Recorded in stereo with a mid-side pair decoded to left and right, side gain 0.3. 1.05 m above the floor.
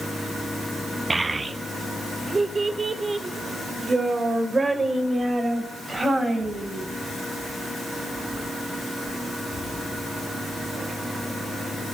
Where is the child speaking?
35° right, 0.7 m; by 6.8 s 45° right, 5 m.